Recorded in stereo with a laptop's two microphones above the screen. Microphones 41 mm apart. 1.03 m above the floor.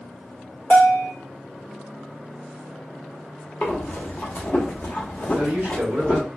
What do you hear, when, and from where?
0.7 s a bell: 60° left (ahead or behind), 2 m
3.6 s breathing: 40° left (ahead or behind), 0.9 m
5.3 s a man speaking: 70° right (ahead or behind), 1.4 m